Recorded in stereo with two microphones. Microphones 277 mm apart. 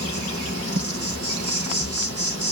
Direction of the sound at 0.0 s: 60° right (ahead or behind).